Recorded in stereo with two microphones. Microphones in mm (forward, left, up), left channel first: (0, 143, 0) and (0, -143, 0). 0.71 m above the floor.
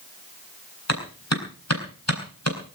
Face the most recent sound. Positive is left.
turn(degrees=65)  # may be behind; listen again after turning